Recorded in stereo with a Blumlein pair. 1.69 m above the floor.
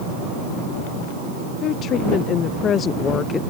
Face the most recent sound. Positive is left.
turn(degrees=20)